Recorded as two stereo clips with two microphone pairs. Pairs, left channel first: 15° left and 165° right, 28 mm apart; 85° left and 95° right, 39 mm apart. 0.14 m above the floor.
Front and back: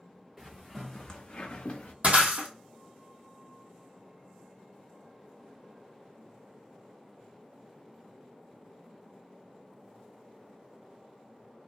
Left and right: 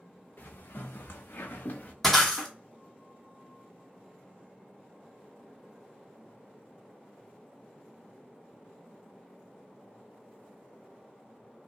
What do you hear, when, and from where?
0.4 s footsteps: 120° left, 0.8 m; by 1.9 s 40° left, 0.8 m
2.0 s breaking glass: 170° left, 1.0 m